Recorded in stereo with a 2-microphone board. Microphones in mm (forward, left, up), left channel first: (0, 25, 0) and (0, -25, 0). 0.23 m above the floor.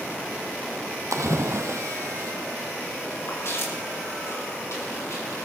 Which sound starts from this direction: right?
A splash, at 1.1 s.